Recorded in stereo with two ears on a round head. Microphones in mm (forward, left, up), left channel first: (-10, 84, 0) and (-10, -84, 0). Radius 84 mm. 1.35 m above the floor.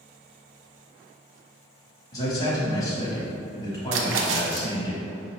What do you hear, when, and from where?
2.1 s a man speaking: 20° left (ahead or behind), 1.2 m
3.9 s a splash: 70° right (ahead or behind), 0.5 m